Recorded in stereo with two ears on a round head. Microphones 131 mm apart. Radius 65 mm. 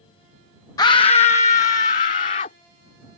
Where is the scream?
25° left (ahead or behind); by 2.5 s 55° left (ahead or behind).